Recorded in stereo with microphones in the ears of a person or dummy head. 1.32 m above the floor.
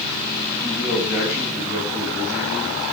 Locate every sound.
0.6 s a man speaking: 5° right (ahead or behind), 8 m; by 2.8 s 10° right (ahead or behind), 10 m